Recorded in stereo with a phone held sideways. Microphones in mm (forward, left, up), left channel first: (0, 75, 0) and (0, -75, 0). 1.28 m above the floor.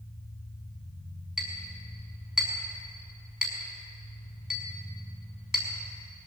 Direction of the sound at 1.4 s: 5° right (ahead or behind).